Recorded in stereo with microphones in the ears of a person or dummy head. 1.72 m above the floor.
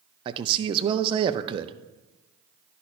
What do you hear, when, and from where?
0.2 s a man speaking: 30° right (ahead or behind), 0.5 m